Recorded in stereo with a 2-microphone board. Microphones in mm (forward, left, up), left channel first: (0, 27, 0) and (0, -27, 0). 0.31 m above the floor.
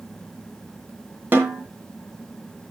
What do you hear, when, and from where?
1.3 s a snare drum: 40° right (ahead or behind), 2.5 m